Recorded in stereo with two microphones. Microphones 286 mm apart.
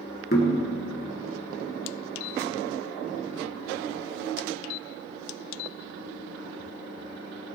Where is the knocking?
35° left (ahead or behind), 1.9 m.